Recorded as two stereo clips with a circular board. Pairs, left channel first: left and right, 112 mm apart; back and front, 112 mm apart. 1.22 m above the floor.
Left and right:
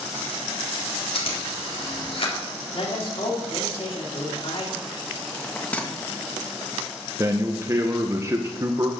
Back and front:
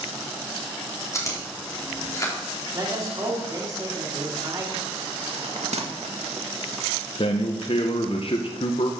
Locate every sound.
1.1 s chewing: 120° left, 3.5 m
2.7 s a man speaking: 60° left, 3 m
5.3 s a bell: 15° left, 1.7 m
7.2 s a man speaking: 150° right, 0.9 m